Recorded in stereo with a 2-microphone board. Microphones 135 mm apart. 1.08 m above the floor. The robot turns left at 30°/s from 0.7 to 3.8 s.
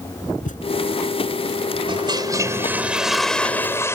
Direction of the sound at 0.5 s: 65° left (ahead or behind).